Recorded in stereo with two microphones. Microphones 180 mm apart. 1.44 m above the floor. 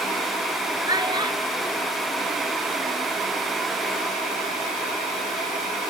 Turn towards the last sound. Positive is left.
turn(degrees=-35)  # may be behind; listen again after turning